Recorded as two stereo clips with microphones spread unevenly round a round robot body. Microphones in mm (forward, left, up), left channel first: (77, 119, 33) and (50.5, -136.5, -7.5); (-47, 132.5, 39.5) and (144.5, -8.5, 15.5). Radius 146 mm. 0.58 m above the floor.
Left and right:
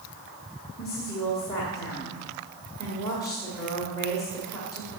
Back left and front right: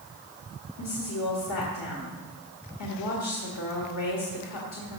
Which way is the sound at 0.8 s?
165° left.